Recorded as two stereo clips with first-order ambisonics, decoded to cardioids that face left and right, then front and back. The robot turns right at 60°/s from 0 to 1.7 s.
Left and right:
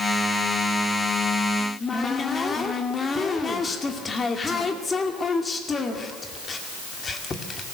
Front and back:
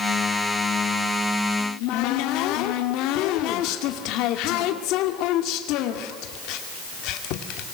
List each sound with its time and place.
1.6 s a cupboard door: 10° left, 2 m; by 7.7 s 20° left, 2 m